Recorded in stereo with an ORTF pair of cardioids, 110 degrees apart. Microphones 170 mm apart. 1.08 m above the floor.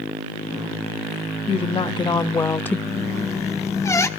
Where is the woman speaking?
35° left, 1.5 m; by 2.8 s 10° left, 0.8 m.